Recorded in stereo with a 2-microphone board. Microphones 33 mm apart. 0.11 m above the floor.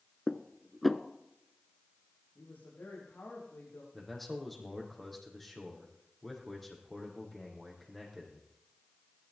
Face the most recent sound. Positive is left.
turn(degrees=5)  # may be behind; listen again after turning